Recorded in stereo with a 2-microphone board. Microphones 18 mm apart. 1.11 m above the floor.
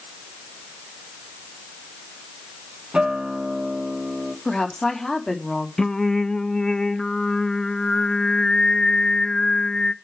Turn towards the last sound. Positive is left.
turn(degrees=40)  # may be behind; listen again after turning